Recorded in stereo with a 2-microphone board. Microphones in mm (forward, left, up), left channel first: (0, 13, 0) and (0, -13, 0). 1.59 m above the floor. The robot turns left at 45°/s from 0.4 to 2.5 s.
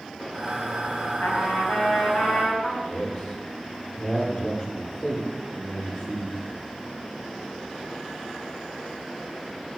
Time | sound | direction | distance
1.2 | a trumpet | 85° left | 4.5 m
2.8 | a man speaking | 35° left (ahead or behind) | 6 m